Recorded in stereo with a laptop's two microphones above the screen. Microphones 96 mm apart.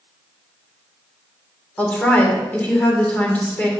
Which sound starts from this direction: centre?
A woman speaking, at 1.8 s.